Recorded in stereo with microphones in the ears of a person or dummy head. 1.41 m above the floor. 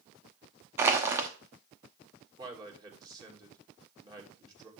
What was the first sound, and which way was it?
Crushing, 15° right (ahead or behind).